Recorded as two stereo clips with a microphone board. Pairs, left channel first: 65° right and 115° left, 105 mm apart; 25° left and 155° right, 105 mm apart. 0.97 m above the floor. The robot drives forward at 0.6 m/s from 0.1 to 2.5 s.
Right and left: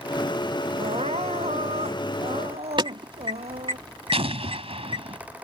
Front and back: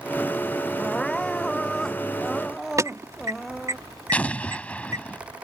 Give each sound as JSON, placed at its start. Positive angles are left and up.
{"t": 0.8, "sound": "crying", "azimuth_deg": 105}
{"t": 2.8, "sound": "an alarm", "azimuth_deg": 145}
{"t": 4.1, "sound": "an explosion", "azimuth_deg": 100}